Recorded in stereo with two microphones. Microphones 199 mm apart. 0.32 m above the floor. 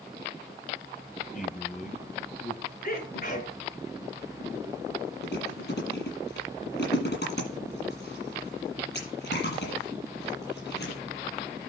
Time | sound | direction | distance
1.3 | a man speaking | 45° left (ahead or behind) | 1.8 m
2.8 | a sneeze | 45° left (ahead or behind) | 4.5 m
5.2 | chewing | 60° left (ahead or behind) | 8 m